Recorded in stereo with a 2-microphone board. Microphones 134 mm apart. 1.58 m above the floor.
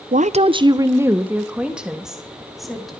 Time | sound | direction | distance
0.1 | a woman speaking | 75° right (ahead or behind) | 0.8 m